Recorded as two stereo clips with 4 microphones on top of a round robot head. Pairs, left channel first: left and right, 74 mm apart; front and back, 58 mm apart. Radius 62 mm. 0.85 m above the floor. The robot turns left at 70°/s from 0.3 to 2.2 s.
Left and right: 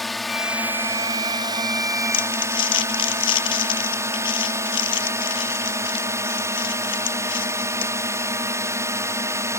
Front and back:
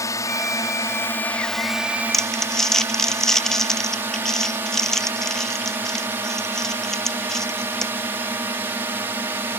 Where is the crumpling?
85° left; by 7.9 s 80° left.